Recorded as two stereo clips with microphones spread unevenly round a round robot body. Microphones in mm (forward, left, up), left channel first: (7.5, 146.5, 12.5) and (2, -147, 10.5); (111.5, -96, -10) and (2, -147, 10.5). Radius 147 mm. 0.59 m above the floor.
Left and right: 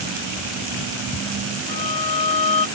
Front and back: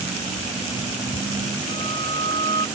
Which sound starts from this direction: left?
A violin, at 1.7 s.